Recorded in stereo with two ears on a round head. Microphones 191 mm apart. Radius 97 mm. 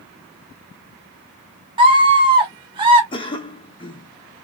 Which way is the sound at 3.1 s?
25° left (ahead or behind).